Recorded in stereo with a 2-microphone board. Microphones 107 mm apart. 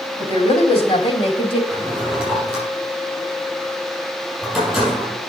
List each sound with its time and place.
0.2 s a woman speaking: 65° left (ahead or behind), 3.5 m; by 1.6 s 50° left (ahead or behind), 2 m
1.7 s a drawer: centre (ahead or behind), 6.5 m